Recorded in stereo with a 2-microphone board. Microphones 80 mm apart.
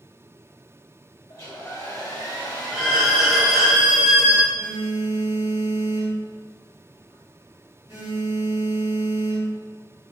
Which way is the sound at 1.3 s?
45° left (ahead or behind).